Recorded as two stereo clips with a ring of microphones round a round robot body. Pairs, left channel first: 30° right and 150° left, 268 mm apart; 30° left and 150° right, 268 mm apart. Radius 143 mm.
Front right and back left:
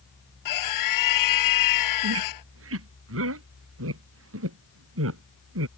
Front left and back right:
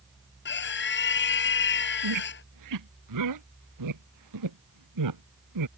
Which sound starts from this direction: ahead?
A scream, at 0.5 s.